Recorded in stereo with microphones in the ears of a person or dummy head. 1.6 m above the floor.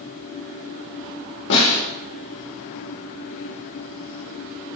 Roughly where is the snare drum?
Left.